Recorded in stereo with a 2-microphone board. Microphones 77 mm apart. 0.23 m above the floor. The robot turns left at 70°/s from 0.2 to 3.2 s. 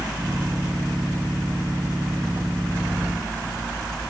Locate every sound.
Only background noise.